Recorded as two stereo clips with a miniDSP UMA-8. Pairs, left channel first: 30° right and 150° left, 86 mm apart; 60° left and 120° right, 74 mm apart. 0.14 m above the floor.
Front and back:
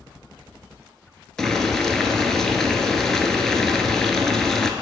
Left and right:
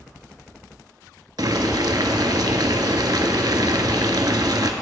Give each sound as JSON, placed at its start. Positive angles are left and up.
{"t": 1.4, "sound": "boiling", "azimuth_deg": -115, "distance_m": 0.6}